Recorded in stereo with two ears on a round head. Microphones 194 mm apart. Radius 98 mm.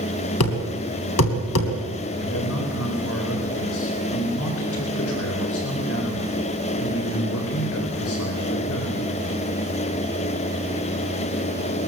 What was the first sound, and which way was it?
A thud, 90° left.